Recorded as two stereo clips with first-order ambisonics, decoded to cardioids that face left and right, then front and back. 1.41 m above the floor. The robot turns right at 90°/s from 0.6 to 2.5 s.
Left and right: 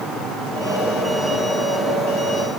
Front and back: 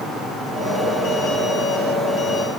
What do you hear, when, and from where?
Only background noise.